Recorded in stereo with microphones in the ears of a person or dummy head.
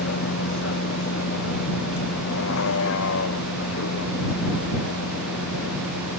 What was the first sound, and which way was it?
A vehicle, 60° left (ahead or behind).